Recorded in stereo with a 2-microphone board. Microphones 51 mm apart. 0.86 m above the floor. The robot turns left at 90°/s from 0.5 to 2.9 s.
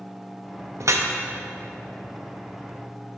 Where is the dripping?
70° right (ahead or behind), 0.6 m; by 1.1 s 65° right (ahead or behind), 0.6 m.